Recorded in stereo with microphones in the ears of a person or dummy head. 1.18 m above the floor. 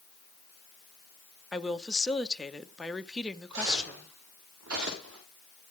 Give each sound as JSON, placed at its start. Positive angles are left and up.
{"t": 1.5, "sound": "a woman speaking", "side_deg": 0, "distance_m": 0.8}
{"t": 3.5, "sound": "footsteps", "side_deg": -70, "distance_m": 8.0}